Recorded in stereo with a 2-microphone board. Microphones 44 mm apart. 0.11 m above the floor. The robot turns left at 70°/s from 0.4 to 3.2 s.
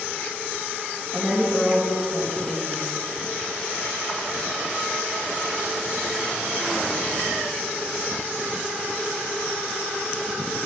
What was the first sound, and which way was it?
A woman speaking, 25° right (ahead or behind).